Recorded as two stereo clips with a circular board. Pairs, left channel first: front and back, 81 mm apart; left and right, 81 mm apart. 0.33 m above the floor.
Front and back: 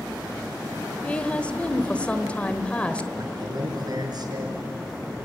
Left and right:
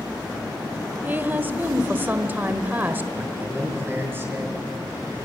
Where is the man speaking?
150° right, 5.5 m.